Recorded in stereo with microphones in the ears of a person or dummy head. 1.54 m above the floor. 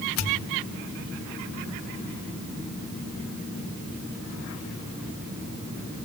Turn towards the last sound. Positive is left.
turn(degrees=70)  # may be behind; listen again after turning